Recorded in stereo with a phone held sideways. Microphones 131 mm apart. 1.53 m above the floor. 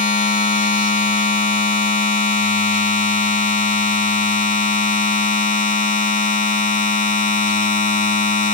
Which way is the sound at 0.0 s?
75° left (ahead or behind).